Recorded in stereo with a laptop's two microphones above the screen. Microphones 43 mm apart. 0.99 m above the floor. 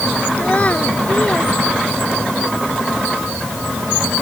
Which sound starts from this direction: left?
A child speaking, at 0.4 s.